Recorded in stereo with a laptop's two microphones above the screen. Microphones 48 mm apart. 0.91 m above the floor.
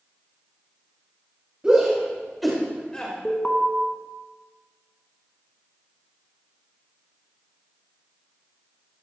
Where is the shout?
25° right (ahead or behind), 2.5 m; by 3.1 s 25° left (ahead or behind), 2 m.